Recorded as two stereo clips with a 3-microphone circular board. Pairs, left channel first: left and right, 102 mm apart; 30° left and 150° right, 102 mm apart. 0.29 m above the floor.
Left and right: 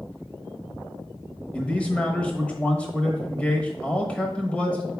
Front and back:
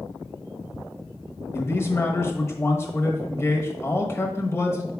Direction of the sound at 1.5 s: 30° left.